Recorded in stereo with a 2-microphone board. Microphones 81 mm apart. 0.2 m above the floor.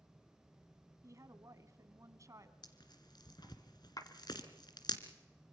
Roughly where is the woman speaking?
Right.